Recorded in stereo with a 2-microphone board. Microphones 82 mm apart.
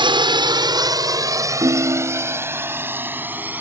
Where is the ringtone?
60° right (ahead or behind).